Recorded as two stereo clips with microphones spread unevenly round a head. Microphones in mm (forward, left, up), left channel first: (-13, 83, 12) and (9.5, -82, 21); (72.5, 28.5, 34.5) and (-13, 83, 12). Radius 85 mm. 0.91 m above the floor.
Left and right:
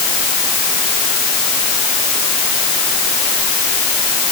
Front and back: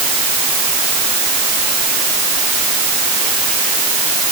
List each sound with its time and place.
Only background noise.